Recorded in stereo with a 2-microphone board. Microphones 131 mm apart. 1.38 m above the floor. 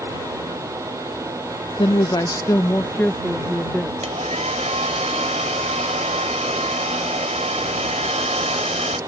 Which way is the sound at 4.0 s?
65° right (ahead or behind).